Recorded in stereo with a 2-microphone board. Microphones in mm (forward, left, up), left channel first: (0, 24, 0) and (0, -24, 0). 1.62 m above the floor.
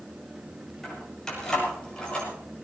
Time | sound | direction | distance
0.8 | keys jangling | 10° left (ahead or behind) | 8 m